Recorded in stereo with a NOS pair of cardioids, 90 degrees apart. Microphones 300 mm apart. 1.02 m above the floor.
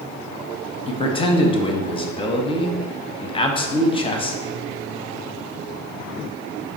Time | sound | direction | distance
0.9 | a man speaking | 20° left | 0.7 m